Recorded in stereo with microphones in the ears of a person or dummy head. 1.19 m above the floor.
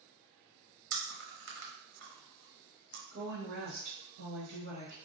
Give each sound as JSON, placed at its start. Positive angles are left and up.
{"t": 0.9, "sound": "chewing", "side_deg": -70, "distance_m": 0.7}
{"t": 3.1, "sound": "a woman speaking", "side_deg": -55, "distance_m": 1.0}